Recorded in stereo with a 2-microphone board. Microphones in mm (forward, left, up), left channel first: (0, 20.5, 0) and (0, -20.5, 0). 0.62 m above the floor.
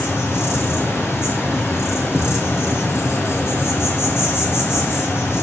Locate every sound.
0.0 s an insect: 85° left, 2.5 m